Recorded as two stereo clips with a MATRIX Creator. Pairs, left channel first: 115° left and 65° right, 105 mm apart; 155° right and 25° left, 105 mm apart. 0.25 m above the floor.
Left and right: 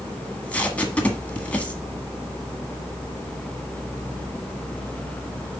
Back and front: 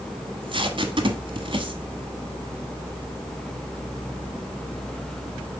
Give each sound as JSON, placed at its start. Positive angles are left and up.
{"t": 0.2, "sound": "tape being pulled", "azimuth_deg": 40, "distance_m": 1.2}